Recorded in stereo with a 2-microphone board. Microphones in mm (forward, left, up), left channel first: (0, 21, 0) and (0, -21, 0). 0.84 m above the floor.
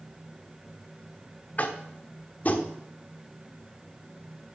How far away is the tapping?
About 1.0 m.